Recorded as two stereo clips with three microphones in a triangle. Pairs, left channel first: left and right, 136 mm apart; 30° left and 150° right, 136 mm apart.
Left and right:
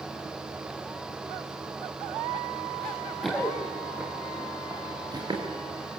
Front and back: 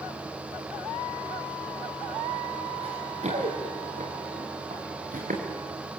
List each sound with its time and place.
2.8 s running footsteps: 170° left, 4.5 m; by 5.4 s 145° right, 5 m